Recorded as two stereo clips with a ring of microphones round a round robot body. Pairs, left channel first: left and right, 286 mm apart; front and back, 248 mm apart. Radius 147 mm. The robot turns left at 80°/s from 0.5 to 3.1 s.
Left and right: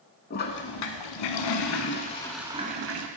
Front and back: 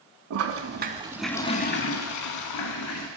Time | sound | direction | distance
0.3 | a toilet flushing | 150° left | 0.5 m